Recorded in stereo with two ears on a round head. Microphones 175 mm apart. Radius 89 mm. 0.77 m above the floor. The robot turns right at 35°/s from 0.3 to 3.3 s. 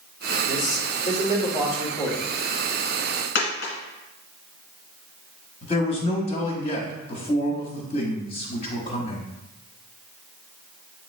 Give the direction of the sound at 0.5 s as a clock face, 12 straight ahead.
9 o'clock.